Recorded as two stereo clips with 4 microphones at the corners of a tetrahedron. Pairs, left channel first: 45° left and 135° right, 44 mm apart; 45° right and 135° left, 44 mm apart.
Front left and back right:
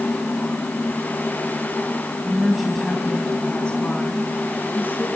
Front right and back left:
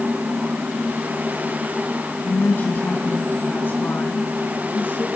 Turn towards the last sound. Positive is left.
turn(degrees=0)